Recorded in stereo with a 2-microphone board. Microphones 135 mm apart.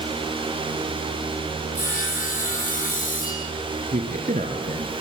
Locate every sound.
1.8 s sawing: 85° left, 8 m
3.9 s a man speaking: 70° right (ahead or behind), 3 m